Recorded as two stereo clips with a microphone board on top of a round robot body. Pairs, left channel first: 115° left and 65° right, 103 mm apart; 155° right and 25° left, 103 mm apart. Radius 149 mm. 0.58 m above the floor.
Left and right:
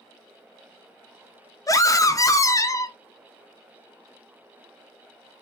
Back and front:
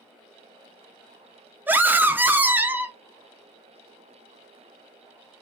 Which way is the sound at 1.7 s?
85° left.